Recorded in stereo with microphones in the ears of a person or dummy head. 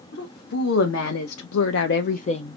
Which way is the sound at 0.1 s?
70° left (ahead or behind).